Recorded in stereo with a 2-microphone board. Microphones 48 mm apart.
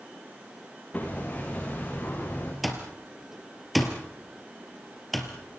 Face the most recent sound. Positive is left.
turn(degrees=0)  # may be behind; listen again after turning